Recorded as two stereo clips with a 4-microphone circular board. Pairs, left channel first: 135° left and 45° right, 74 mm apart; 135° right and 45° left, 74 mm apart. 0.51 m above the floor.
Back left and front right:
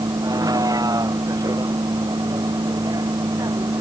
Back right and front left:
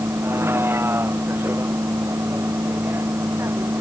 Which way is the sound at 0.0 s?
10° right.